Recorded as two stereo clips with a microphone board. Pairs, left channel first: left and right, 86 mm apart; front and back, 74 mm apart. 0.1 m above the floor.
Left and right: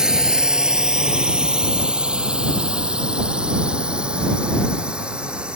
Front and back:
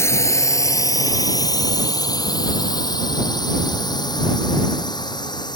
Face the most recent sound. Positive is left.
turn(degrees=-10)